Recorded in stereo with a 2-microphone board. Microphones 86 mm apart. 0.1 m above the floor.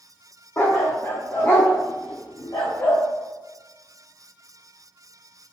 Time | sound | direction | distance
0.6 | a dog barking | 35° left (ahead or behind) | 2 m